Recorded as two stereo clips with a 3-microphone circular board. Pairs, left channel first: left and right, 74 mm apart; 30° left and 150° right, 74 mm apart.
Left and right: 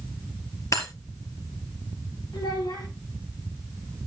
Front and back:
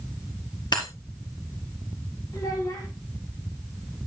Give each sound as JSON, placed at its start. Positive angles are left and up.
{"t": 0.7, "sound": "breaking glass", "azimuth_deg": 45, "distance_m": 3.0}
{"t": 2.3, "sound": "a child speaking", "azimuth_deg": 70, "distance_m": 4.5}